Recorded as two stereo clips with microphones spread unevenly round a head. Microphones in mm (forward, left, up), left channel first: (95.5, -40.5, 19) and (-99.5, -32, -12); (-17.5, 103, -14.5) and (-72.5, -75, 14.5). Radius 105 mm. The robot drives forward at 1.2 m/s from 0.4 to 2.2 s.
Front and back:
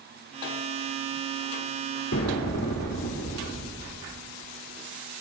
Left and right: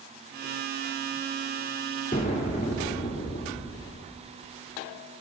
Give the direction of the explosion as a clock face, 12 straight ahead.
11 o'clock.